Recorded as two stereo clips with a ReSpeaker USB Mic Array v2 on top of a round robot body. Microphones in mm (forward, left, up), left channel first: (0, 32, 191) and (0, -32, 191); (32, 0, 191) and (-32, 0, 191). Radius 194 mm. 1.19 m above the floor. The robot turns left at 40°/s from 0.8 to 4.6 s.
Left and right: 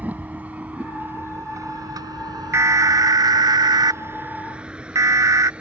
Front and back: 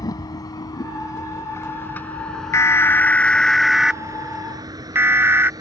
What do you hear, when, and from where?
0.0 s a vehicle: 25° right; by 5.6 s 165° right
2.5 s an alarm: 45° right; by 5.5 s 125° right